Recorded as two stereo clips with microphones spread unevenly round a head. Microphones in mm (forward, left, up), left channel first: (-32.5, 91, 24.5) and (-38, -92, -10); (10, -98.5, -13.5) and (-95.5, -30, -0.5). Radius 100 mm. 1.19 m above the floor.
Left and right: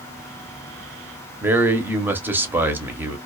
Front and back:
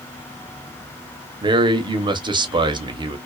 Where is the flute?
No flute in this recording.